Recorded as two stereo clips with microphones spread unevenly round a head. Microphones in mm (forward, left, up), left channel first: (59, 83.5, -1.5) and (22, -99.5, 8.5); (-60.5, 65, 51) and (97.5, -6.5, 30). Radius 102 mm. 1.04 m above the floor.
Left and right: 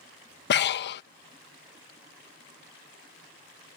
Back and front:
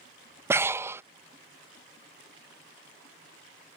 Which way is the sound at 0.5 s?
50° left.